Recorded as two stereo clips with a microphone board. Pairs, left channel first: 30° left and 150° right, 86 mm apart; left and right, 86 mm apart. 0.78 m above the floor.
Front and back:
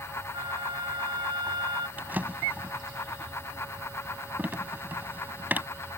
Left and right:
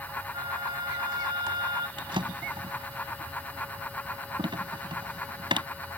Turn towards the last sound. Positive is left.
turn(degrees=-80)